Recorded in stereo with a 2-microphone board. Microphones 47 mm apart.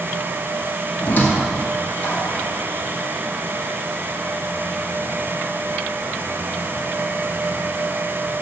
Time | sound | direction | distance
1.0 | a squeak | 35° left (ahead or behind) | 1.6 m